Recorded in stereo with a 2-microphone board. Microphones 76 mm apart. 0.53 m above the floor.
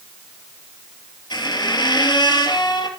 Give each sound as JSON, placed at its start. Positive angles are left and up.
{"t": 1.3, "sound": "a squeak", "side_deg": 85, "distance_m": 2.5}